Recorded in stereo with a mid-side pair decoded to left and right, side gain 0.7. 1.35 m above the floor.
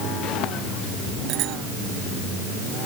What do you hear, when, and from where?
1.3 s a bicycle bell: 55° right